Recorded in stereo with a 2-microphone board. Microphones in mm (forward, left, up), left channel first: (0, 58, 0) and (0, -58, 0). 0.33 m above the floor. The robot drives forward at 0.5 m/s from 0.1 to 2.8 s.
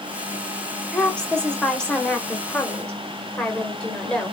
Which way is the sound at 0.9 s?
5° left (ahead or behind).